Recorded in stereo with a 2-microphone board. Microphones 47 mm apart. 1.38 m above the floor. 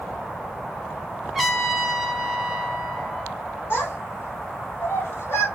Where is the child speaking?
55° left (ahead or behind), 1.8 m.